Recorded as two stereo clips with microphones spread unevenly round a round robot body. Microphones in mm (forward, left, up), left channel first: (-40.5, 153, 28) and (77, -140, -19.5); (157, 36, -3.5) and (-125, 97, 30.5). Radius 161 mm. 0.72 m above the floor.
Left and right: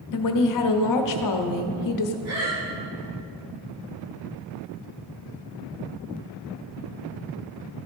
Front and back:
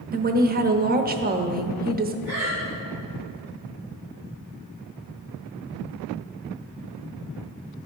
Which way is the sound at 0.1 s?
110° left.